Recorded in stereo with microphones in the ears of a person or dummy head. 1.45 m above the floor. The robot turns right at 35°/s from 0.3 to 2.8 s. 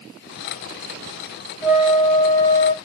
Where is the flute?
10° right, 0.6 m; by 2.7 s 30° left, 0.6 m.